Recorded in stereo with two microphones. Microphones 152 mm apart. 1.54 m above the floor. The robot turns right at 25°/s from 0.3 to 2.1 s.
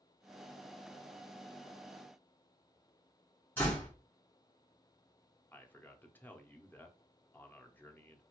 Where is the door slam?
15° left (ahead or behind), 1.6 m.